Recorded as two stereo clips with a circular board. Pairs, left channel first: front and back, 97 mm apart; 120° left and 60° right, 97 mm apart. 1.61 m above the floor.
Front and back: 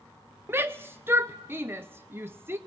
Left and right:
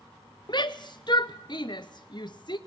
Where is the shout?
120° left, 0.7 m.